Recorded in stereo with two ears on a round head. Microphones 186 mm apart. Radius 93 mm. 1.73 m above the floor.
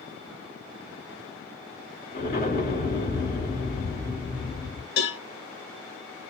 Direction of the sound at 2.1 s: 35° left (ahead or behind).